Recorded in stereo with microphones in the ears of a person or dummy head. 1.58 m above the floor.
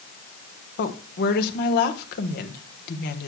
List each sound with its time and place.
0.8 s a woman speaking: 60° left (ahead or behind), 1.3 m